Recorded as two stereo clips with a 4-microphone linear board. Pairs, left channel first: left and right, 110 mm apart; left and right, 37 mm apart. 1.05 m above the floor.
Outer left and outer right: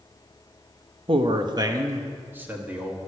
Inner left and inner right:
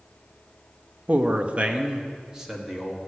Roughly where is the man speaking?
Right.